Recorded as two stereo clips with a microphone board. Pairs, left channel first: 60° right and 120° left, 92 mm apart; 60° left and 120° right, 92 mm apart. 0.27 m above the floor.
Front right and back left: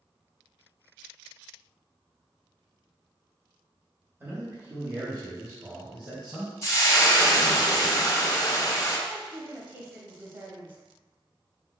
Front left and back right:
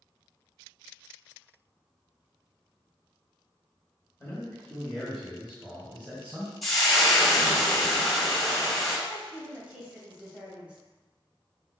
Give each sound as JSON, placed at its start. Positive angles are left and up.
{"t": 4.2, "sound": "a man speaking", "azimuth_deg": 90, "distance_m": 1.4}
{"t": 6.6, "sound": "frying", "azimuth_deg": -25, "distance_m": 1.1}
{"t": 9.1, "sound": "a woman speaking", "azimuth_deg": 175, "distance_m": 1.1}